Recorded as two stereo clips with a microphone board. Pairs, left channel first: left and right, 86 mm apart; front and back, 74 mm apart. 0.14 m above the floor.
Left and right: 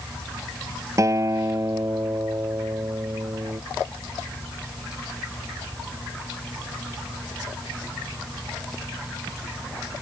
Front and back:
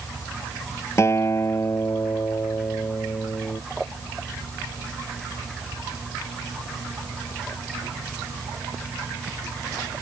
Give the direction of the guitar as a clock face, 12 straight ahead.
1 o'clock.